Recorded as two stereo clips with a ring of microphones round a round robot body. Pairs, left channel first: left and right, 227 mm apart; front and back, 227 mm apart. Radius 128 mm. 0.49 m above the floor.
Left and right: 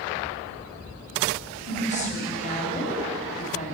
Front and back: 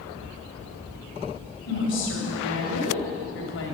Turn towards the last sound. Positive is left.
turn(degrees=35)